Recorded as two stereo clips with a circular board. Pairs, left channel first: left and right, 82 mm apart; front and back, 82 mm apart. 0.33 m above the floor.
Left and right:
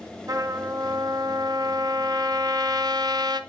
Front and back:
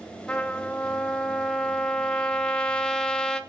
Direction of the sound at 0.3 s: 75° right.